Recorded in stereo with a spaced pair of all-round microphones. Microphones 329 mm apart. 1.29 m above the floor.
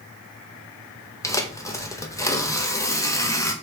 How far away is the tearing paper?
About 0.6 m.